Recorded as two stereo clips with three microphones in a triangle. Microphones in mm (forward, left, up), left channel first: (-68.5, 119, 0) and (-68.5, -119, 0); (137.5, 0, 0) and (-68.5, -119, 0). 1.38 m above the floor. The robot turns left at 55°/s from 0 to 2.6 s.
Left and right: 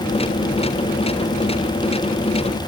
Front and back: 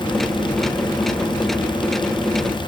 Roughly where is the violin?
I don't hear a violin.